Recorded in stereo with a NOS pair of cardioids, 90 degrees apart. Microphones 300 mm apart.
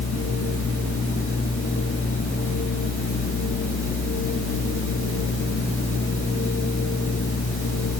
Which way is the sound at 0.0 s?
45° left.